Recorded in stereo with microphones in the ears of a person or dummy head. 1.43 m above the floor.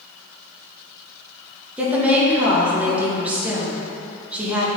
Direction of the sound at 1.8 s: 10° right (ahead or behind).